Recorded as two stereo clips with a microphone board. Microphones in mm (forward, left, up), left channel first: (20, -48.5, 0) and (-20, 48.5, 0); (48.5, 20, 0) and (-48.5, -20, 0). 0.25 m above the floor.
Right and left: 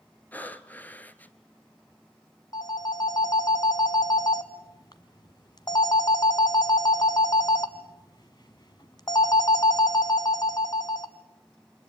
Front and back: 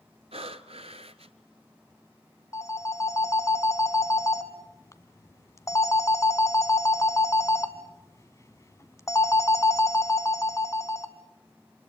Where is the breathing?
140° right, 0.9 m.